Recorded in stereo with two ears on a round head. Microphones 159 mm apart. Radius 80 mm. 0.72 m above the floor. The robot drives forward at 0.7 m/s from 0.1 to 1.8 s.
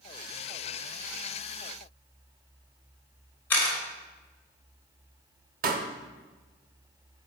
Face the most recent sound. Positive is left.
turn(degrees=-50)  # may be behind; listen again after turning